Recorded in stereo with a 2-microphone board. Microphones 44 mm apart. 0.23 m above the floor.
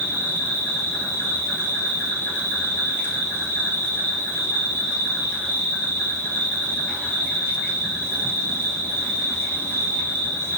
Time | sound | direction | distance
0.0 | an insect | 70° left (ahead or behind) | 1.2 m